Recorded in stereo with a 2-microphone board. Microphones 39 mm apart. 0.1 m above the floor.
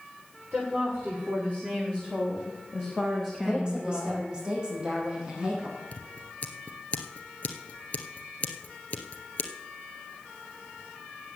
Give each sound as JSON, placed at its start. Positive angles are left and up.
{"t": 0.5, "sound": "a woman speaking", "side_deg": -45, "distance_m": 8.5}
{"t": 3.4, "sound": "a woman speaking", "side_deg": -25, "distance_m": 6.0}
{"t": 5.9, "sound": "scissors", "side_deg": 40, "distance_m": 1.5}